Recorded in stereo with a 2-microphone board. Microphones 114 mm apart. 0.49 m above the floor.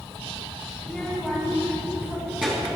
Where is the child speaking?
5° left (ahead or behind), 2 m; by 2.8 s 10° right (ahead or behind), 4.5 m.